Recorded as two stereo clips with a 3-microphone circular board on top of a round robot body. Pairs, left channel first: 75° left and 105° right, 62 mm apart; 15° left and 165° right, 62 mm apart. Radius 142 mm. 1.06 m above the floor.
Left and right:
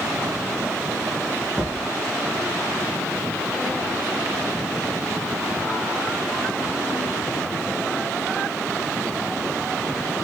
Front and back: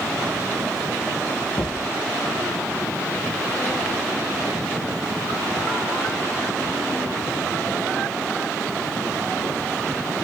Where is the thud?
20° right, 3 m.